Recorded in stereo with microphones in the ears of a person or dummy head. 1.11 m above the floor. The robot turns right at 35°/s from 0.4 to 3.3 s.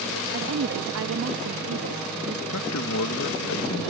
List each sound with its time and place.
0.3 s a woman speaking: 120° right; by 2.4 s 50° right
2.5 s a man speaking: 75° left (ahead or behind); by 3.9 s 65° left (ahead or behind)